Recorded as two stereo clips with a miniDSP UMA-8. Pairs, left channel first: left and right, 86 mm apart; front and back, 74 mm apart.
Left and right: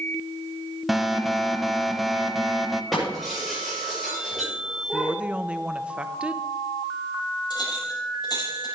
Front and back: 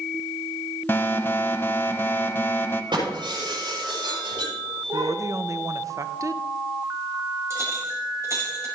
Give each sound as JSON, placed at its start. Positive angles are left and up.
{"t": 0.9, "sound": "an alarm", "azimuth_deg": 0, "distance_m": 0.9}
{"t": 2.9, "sound": "breaking glass", "azimuth_deg": -175, "distance_m": 6.5}
{"t": 4.9, "sound": "a woman speaking", "azimuth_deg": -160, "distance_m": 0.7}
{"t": 7.5, "sound": "a clink", "azimuth_deg": 130, "distance_m": 6.0}